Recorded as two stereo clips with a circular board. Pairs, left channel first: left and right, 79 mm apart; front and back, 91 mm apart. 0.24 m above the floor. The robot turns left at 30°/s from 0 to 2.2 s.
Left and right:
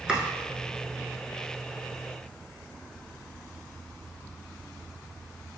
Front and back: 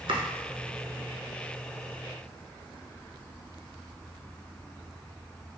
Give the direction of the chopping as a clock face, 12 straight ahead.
5 o'clock.